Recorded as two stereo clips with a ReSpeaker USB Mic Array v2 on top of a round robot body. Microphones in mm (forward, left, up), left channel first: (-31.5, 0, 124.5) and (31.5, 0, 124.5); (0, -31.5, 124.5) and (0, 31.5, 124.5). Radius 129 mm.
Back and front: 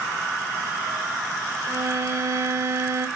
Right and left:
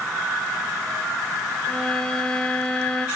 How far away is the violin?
About 1.4 m.